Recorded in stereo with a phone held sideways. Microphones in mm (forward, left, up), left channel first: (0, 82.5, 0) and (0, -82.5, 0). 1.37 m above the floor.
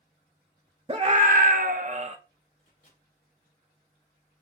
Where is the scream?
35° right (ahead or behind), 0.5 m; by 2.2 s 45° right (ahead or behind), 0.8 m.